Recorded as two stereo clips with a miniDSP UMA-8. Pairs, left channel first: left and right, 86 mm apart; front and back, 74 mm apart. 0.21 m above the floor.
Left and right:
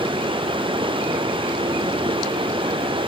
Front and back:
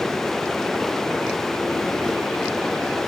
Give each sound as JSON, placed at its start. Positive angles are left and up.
{"t": 0.0, "sound": "running water", "azimuth_deg": -85}